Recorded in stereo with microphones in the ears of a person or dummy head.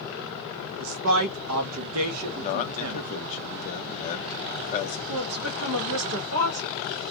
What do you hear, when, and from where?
0.8 s a man speaking: 75° right (ahead or behind), 0.5 m
2.4 s a man speaking: 40° left (ahead or behind), 0.7 m
5.1 s a woman speaking: 90° right, 0.9 m